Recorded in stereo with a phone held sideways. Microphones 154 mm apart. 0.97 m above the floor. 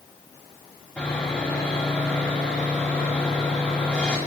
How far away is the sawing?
About 5 m.